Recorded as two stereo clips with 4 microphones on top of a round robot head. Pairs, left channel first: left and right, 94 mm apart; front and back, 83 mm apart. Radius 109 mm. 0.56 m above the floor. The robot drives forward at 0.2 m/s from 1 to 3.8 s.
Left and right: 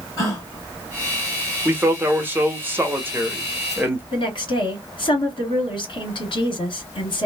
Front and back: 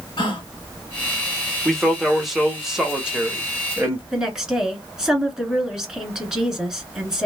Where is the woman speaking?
100° left, 1.7 m.